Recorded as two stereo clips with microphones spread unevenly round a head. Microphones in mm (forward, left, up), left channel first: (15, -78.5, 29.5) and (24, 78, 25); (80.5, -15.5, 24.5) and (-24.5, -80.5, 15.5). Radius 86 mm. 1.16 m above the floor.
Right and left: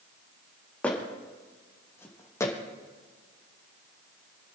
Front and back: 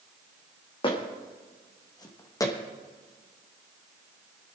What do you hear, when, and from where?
0.8 s footsteps: 15° right, 3.5 m; by 2.5 s 25° right, 2.5 m